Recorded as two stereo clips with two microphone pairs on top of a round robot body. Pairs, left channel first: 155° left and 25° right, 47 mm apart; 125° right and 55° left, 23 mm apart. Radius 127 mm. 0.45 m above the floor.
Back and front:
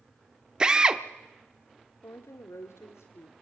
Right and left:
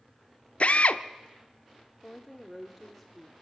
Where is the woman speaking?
155° left, 1.5 m.